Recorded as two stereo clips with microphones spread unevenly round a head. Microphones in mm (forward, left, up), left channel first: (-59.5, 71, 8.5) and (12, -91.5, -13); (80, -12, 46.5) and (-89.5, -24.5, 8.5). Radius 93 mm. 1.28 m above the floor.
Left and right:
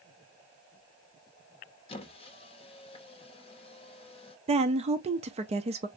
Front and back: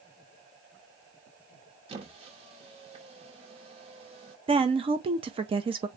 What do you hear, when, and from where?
1.9 s a squeak: 125° left, 0.7 m
4.5 s a woman speaking: 120° right, 0.6 m